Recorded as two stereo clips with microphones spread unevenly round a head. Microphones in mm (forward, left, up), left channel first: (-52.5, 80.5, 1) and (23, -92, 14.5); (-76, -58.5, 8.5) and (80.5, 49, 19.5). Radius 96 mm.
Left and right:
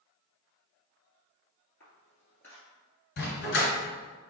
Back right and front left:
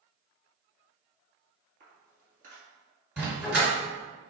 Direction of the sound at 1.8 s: 35° left.